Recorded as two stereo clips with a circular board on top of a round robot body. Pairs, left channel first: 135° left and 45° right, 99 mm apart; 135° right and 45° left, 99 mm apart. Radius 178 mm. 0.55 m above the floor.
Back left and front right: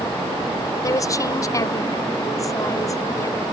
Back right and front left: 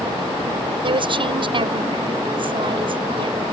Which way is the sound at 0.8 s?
80° left.